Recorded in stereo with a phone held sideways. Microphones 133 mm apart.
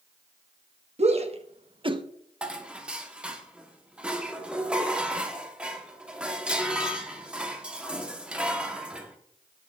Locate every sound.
1.0 s a shout: 50° right (ahead or behind), 1.2 m; by 2.0 s 35° right (ahead or behind), 0.7 m
2.4 s dishes clattering: 5° right (ahead or behind), 1.2 m